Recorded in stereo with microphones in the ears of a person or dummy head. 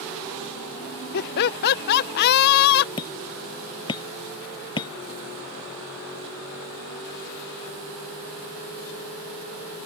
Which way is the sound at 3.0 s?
20° left (ahead or behind).